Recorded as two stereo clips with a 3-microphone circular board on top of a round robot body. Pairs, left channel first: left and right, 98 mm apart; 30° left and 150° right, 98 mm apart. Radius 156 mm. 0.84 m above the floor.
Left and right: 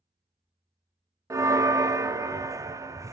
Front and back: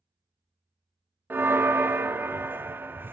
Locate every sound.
1.3 s a bell: 100° right, 0.5 m